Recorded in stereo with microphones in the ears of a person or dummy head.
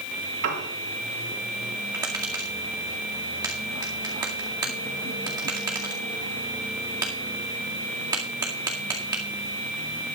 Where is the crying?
I don't hear crying.